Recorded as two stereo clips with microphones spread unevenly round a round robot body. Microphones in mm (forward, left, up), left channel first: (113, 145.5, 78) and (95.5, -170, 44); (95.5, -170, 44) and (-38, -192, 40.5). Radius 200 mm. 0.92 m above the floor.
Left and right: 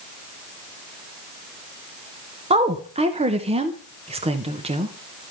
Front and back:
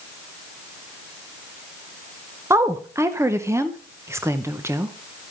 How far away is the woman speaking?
About 0.9 m.